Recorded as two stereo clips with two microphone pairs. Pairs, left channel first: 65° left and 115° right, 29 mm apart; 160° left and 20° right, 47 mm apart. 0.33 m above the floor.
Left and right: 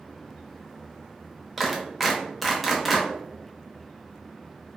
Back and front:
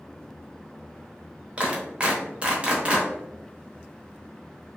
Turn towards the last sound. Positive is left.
turn(degrees=-15)